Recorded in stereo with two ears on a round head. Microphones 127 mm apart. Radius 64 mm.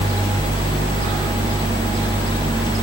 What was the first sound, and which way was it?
Only background noise.